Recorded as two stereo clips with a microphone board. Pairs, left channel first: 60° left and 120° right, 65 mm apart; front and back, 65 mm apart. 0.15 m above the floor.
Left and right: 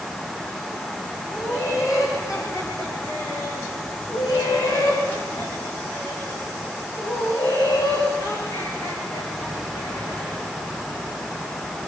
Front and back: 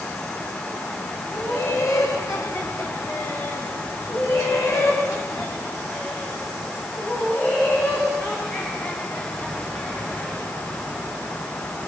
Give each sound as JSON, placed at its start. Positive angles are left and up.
{"t": 1.3, "sound": "laughter", "azimuth_deg": 25, "distance_m": 8.5}